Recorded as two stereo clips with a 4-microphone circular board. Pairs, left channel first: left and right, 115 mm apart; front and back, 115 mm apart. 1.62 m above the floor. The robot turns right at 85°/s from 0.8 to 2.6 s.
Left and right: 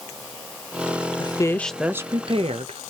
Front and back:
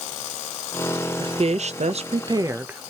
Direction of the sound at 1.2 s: 135° left.